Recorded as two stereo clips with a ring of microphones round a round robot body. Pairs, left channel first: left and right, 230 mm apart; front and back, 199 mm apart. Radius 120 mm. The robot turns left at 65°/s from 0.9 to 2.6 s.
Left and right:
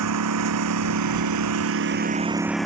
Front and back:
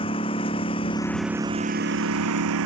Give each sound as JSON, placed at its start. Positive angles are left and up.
{"t": 0.0, "sound": "a lawn mower", "azimuth_deg": -70}